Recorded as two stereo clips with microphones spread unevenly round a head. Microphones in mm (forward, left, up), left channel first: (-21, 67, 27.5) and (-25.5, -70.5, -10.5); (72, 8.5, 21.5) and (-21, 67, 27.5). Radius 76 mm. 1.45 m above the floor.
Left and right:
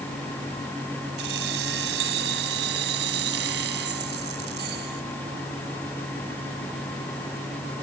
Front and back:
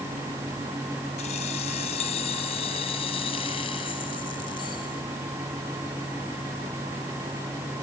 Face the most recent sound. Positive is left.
turn(degrees=-95)